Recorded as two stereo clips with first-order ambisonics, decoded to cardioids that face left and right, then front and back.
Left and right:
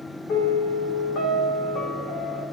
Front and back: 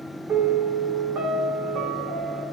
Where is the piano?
125° left, 1.6 m.